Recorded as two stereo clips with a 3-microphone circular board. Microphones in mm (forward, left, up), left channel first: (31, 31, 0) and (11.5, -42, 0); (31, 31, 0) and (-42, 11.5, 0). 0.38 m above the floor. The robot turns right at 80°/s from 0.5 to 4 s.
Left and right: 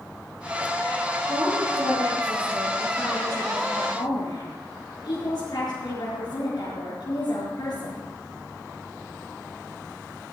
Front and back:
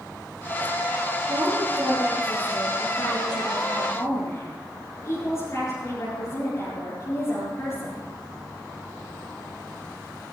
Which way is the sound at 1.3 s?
160° right.